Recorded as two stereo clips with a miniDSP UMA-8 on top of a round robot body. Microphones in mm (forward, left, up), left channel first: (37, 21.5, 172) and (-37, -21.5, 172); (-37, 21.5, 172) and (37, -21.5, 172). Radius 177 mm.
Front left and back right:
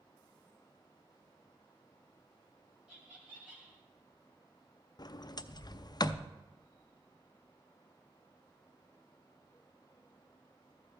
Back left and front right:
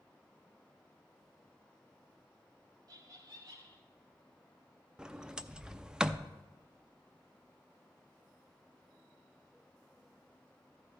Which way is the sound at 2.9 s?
75° right.